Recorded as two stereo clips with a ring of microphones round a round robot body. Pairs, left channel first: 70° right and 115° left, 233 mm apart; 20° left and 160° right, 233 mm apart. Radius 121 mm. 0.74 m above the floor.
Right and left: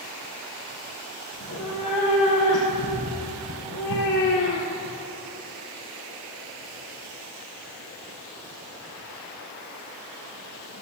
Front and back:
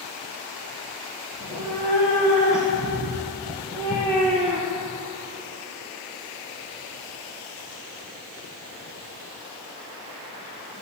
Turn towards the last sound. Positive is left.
turn(degrees=-70)